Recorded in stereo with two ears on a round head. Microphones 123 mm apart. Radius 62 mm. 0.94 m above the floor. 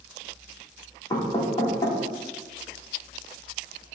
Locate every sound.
1.1 s knocking: 30° left (ahead or behind), 2 m